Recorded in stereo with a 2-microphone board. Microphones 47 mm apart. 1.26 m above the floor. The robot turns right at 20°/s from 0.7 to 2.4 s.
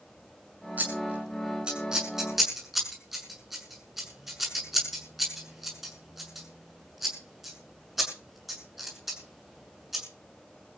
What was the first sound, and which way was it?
Scissors, 35° right (ahead or behind).